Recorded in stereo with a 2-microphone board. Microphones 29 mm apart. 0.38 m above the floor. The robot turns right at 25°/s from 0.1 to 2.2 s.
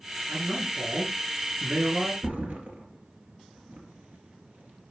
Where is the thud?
70° right (ahead or behind), 2.5 m.